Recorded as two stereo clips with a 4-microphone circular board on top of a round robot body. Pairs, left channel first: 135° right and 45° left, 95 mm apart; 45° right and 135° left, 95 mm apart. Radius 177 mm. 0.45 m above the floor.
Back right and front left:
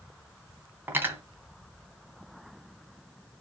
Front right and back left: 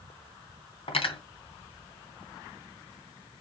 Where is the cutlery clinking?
25° right, 3.5 m.